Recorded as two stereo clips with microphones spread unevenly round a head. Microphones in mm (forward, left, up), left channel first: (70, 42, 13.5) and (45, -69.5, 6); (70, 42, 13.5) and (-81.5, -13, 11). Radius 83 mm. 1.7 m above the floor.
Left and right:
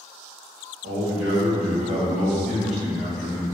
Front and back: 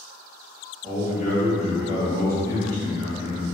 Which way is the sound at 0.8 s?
85° right.